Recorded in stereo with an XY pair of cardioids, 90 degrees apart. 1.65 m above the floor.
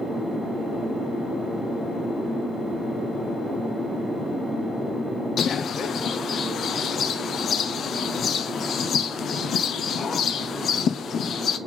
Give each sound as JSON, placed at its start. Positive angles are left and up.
{"t": 5.4, "sound": "a bird", "azimuth_deg": 60, "distance_m": 0.8}